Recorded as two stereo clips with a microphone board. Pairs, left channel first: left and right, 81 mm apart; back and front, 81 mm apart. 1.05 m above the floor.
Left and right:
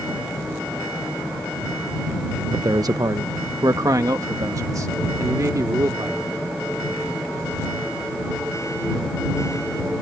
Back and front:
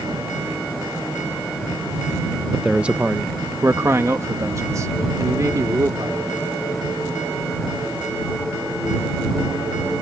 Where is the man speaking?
90° right; by 6.4 s 45° right.